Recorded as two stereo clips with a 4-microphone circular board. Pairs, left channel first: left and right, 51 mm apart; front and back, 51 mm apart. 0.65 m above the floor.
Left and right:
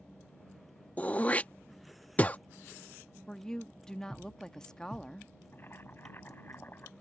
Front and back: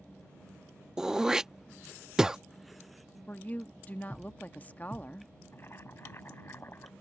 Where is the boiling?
40° left.